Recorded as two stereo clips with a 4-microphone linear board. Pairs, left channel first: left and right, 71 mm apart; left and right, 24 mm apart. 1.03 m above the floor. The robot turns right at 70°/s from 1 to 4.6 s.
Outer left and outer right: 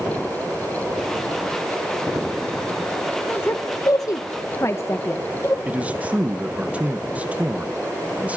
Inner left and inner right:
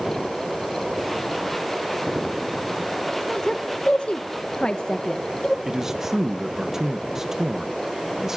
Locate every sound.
3.3 s a woman speaking: 25° left (ahead or behind), 1.0 m; by 5.5 s 40° left (ahead or behind), 1.0 m
5.7 s a man speaking: 20° right (ahead or behind), 1.1 m